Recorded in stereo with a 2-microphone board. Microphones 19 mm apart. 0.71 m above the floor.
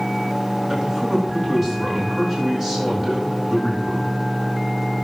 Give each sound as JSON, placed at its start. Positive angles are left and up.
{"t": 0.7, "sound": "a man speaking", "side_deg": -30, "distance_m": 8.0}